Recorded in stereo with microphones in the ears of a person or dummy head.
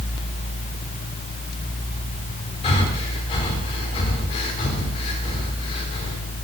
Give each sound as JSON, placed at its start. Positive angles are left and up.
{"t": 2.6, "sound": "breathing", "side_deg": 30, "distance_m": 3.0}